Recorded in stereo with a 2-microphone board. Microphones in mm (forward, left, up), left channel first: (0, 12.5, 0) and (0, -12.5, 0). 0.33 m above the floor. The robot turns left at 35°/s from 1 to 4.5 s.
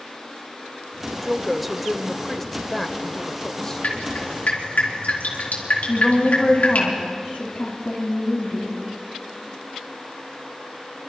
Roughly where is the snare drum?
No snare drum in this recording.